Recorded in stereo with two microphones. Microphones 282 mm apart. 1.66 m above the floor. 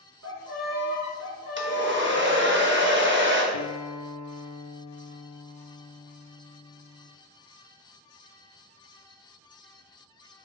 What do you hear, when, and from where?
0.2 s a violin: 60° right (ahead or behind), 2 m
1.6 s a hair dryer: 40° right (ahead or behind), 1.1 m
3.5 s a guitar: 75° left (ahead or behind), 0.5 m